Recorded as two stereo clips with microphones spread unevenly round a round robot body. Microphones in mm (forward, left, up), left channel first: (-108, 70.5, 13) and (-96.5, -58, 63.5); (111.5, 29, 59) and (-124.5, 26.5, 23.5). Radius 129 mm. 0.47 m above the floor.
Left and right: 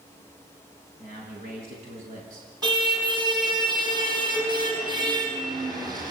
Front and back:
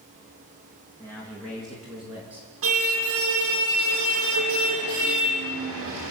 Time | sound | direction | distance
1.0 | a man speaking | 80° right | 6 m
2.6 | a car horn | 140° right | 8 m